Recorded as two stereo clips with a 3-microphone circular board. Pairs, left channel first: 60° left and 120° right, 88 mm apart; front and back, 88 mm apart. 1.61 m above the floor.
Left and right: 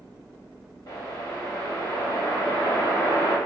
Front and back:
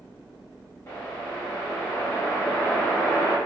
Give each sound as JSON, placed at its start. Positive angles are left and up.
{"t": 0.9, "sound": "a whoosh", "azimuth_deg": 45, "distance_m": 1.0}